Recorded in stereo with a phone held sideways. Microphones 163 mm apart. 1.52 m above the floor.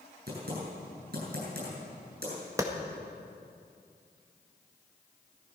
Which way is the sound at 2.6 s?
20° right (ahead or behind).